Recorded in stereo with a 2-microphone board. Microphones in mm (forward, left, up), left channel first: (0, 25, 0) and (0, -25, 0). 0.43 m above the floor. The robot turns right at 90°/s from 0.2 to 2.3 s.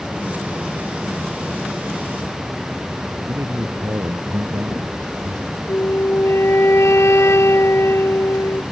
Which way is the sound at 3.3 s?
75° right (ahead or behind).